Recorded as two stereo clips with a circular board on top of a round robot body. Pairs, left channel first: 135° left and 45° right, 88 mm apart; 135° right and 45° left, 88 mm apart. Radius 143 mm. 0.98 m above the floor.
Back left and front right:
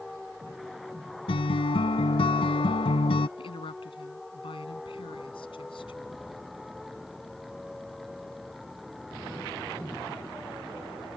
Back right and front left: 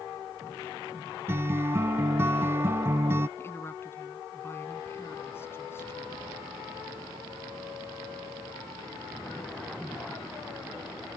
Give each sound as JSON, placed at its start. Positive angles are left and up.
{"t": 1.3, "sound": "a guitar", "azimuth_deg": 110}
{"t": 3.4, "sound": "a woman speaking", "azimuth_deg": 160}